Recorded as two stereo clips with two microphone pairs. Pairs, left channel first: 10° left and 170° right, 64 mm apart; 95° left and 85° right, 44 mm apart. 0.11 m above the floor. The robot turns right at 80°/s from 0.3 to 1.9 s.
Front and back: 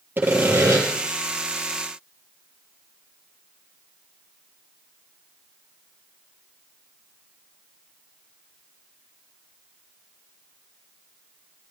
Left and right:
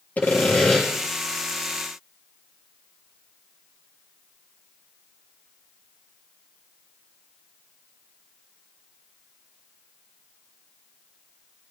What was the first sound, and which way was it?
Sawing, 135° left.